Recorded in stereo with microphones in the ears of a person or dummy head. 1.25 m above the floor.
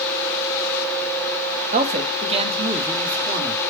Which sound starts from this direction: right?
A man speaking, at 1.7 s.